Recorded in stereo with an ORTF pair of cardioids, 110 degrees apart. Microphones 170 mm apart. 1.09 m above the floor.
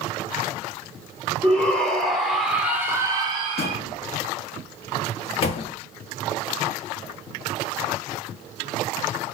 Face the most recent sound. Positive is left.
turn(degrees=40)